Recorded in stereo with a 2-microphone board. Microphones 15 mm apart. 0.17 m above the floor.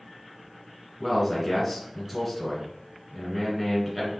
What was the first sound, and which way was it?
A man speaking, 15° left (ahead or behind).